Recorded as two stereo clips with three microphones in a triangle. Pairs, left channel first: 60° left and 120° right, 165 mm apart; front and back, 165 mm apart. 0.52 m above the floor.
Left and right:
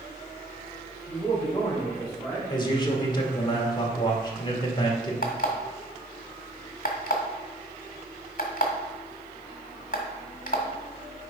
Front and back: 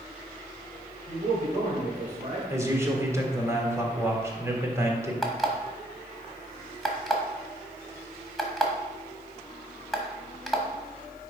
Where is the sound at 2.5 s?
110° left, 1.4 m.